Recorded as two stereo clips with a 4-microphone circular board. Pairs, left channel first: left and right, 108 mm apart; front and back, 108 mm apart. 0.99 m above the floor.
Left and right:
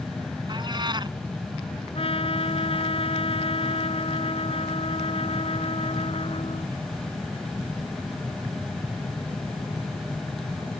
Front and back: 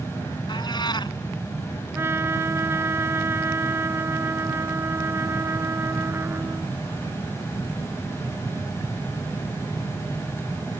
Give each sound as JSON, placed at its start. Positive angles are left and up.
{"t": 0.5, "sound": "a cat meowing", "azimuth_deg": -45}
{"t": 1.9, "sound": "a trumpet", "azimuth_deg": 115}